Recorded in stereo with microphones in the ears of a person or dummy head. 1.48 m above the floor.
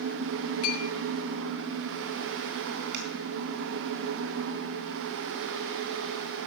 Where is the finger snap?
60° right (ahead or behind), 3.5 m.